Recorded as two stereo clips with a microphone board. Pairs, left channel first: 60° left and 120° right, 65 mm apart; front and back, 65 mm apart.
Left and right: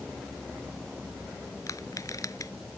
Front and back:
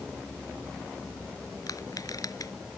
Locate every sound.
1.7 s crushing: 30° left